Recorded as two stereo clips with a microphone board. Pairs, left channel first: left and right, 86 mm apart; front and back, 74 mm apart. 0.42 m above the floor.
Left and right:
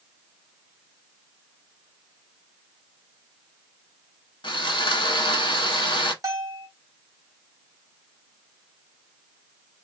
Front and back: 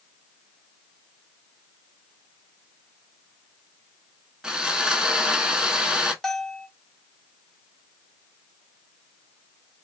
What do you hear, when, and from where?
4.4 s sawing: 100° left, 0.7 m
6.2 s a bell: 85° right, 0.8 m